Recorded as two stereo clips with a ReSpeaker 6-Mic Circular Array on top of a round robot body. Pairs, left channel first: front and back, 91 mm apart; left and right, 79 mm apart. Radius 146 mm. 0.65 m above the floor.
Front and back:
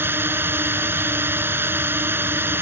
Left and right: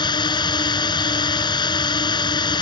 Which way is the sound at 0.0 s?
115° left.